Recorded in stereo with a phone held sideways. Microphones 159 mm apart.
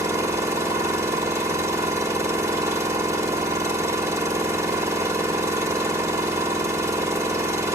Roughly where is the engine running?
Centre.